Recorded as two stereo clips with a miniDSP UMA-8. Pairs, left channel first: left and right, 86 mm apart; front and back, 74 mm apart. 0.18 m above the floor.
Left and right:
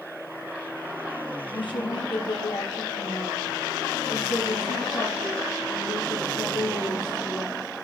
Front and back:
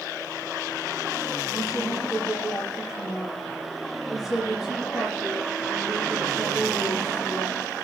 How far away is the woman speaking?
About 4.5 m.